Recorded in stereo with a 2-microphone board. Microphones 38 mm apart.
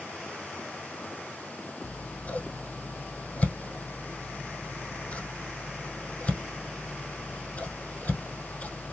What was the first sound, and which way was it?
Scissors, 45° left (ahead or behind).